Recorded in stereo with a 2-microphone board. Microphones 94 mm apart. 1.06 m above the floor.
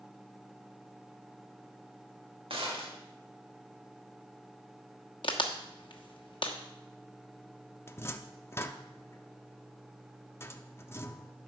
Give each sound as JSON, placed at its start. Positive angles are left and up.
{"t": 2.5, "sound": "a gunshot", "side_deg": -70, "distance_m": 1.7}
{"t": 5.2, "sound": "a crack", "side_deg": 60, "distance_m": 1.2}
{"t": 7.9, "sound": "a cupboard door", "side_deg": 25, "distance_m": 0.6}